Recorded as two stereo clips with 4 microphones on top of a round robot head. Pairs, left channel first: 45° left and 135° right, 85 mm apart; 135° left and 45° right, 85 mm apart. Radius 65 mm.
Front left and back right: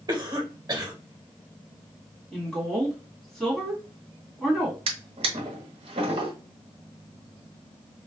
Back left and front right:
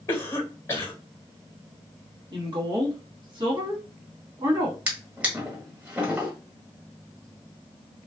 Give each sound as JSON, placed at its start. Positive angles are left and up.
{"t": 0.1, "sound": "a cough", "azimuth_deg": -175, "distance_m": 1.0}
{"t": 2.3, "sound": "a woman speaking", "azimuth_deg": -40, "distance_m": 1.5}
{"t": 4.9, "sound": "a drawer", "azimuth_deg": -115, "distance_m": 1.0}